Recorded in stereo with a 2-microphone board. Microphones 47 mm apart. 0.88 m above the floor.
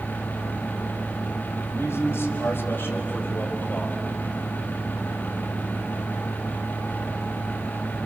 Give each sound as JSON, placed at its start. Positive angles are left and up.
{"t": 1.7, "sound": "a man speaking", "side_deg": 65, "distance_m": 5.5}